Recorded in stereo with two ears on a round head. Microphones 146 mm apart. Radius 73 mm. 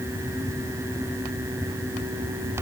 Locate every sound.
Only background noise.